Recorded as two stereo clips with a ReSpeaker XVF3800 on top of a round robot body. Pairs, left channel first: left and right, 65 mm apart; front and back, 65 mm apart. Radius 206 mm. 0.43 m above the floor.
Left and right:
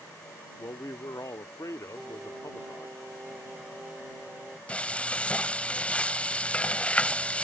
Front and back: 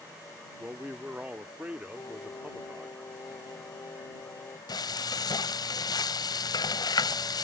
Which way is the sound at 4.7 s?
20° left.